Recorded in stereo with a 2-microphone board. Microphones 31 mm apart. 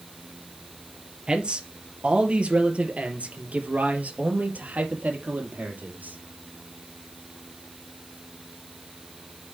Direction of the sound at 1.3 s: 30° right (ahead or behind).